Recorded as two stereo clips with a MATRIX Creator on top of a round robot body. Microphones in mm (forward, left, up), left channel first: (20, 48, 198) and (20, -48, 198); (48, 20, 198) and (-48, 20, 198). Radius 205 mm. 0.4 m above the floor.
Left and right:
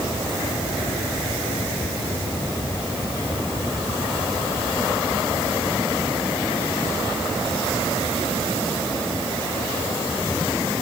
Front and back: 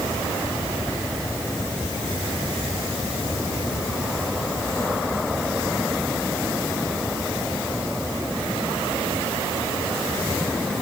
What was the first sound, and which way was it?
Only background noise.